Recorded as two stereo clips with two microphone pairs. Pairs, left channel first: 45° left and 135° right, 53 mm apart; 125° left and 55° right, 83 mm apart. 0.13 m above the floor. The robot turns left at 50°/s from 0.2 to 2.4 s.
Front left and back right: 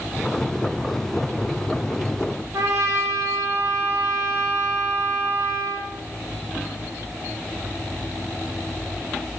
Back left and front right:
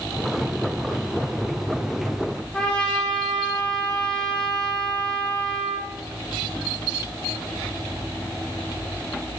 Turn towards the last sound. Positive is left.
turn(degrees=-155)